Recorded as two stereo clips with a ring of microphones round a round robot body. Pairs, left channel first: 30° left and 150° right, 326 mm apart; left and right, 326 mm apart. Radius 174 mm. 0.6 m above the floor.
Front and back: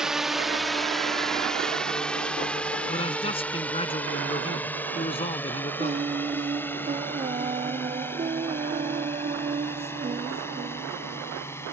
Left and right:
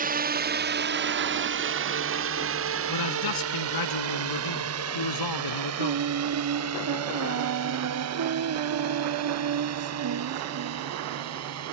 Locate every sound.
0.0 s a drone: 65° right; by 11.7 s 50° right
2.9 s a man speaking: 105° left
5.8 s singing: 80° right